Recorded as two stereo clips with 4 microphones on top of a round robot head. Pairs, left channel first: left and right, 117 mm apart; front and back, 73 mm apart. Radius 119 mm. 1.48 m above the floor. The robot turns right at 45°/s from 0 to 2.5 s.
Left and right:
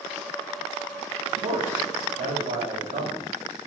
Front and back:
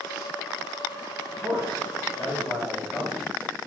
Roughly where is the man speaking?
Behind right.